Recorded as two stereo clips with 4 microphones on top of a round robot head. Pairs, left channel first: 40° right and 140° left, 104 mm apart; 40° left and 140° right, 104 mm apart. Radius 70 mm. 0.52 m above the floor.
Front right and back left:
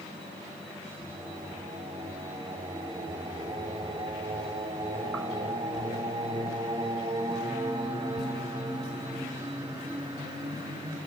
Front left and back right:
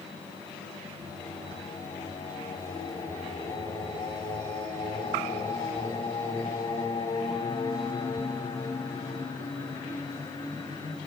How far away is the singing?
About 4.5 m.